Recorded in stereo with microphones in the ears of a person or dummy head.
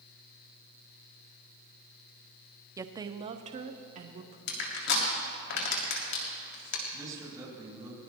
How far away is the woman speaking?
About 0.6 m.